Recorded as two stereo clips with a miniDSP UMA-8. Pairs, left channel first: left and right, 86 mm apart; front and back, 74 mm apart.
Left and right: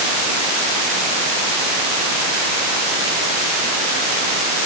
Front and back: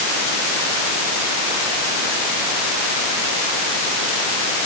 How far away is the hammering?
No hammering in this recording.